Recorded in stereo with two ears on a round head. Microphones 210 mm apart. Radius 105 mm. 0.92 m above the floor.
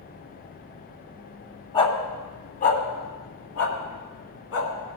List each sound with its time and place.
1.7 s a dog barking: 25° left (ahead or behind), 1.7 m; by 4.7 s 65° left (ahead or behind), 2.5 m